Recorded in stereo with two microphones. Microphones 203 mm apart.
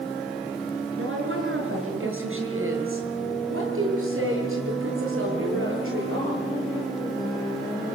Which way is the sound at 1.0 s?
75° right (ahead or behind).